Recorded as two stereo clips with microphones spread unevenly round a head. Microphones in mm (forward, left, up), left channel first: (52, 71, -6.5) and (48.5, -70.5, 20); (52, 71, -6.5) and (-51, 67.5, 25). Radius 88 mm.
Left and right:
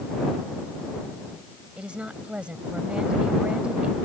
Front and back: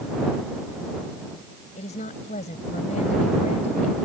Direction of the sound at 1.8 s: 10° right.